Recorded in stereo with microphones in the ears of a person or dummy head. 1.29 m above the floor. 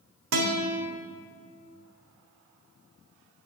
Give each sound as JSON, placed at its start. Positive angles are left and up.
{"t": 0.3, "sound": "a guitar", "side_deg": -70, "distance_m": 1.5}